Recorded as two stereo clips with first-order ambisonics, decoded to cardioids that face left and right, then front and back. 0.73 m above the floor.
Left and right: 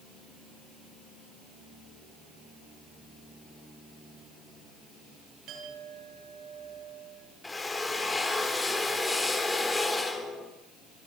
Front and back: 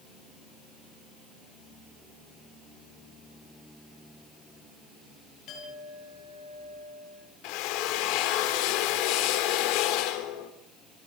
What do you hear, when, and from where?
5.5 s a clink: 45° right, 7 m
7.4 s a drill: 10° left, 2.5 m